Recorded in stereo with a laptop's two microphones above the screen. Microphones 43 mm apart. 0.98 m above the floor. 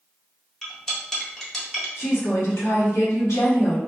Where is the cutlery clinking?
10° left (ahead or behind), 0.6 m.